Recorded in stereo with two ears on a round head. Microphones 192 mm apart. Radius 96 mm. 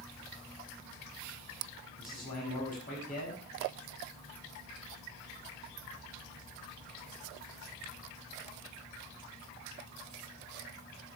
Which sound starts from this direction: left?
A man speaking, at 2.0 s.